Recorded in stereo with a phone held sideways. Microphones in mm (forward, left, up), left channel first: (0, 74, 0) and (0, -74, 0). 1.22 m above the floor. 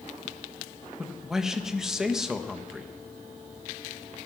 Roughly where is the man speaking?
Centre.